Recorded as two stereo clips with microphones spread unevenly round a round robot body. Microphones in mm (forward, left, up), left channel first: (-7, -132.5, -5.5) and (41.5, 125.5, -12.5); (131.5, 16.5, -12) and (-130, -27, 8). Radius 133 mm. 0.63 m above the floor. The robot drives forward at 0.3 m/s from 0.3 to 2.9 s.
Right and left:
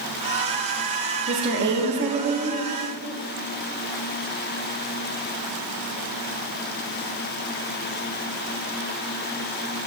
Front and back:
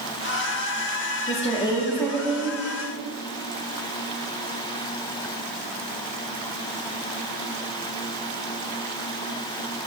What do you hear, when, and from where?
1.3 s a woman speaking: 55° left, 0.7 m; by 2.6 s 110° left, 0.6 m